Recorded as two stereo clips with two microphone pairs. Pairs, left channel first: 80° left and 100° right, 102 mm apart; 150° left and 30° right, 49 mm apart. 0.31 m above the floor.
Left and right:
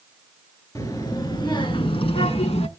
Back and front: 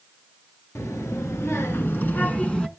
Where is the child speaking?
135° left, 2.5 m; by 2.7 s 75° left, 1.6 m.